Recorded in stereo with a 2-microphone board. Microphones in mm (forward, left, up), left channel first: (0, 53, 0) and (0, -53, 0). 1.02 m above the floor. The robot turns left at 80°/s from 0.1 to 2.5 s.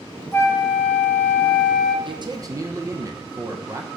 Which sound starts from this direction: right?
A man speaking, at 2.0 s.